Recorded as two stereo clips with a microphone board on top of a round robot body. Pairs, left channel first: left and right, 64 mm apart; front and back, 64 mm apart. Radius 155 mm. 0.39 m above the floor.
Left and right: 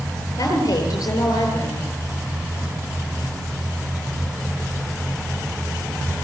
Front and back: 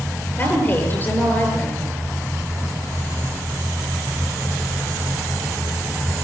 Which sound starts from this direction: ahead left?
A woman speaking, at 0.4 s.